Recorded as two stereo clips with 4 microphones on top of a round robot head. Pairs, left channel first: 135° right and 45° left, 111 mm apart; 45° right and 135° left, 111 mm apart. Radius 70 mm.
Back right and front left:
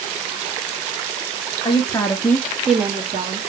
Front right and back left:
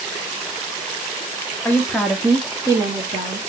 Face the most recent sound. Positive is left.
turn(degrees=105)